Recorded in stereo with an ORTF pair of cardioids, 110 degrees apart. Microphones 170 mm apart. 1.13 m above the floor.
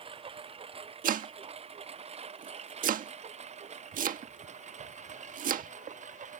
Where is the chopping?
50° right.